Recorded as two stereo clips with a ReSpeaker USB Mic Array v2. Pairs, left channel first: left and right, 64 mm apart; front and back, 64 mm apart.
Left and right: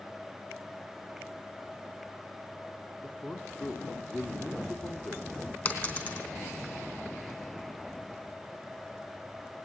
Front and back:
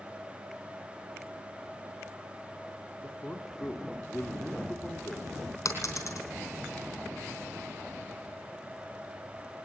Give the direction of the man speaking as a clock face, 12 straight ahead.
10 o'clock.